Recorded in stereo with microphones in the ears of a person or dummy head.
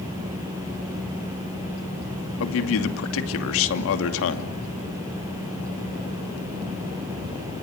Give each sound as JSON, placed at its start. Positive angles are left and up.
{"t": 2.4, "sound": "a man speaking", "side_deg": 80, "distance_m": 2.5}